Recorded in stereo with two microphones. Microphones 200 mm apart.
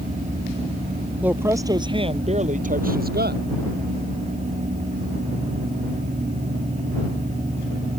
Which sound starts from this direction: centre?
A woman speaking, at 1.2 s.